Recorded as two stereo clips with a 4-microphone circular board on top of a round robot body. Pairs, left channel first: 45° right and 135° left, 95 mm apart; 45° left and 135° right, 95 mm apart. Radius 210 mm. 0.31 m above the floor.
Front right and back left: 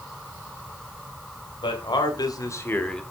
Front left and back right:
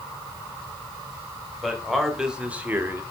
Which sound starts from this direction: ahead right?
A man speaking, at 1.6 s.